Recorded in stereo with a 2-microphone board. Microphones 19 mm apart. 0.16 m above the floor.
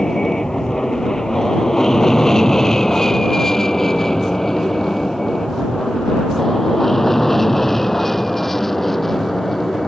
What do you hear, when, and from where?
0.0 s an aircraft: 35° left (ahead or behind); by 9.9 s 15° left (ahead or behind)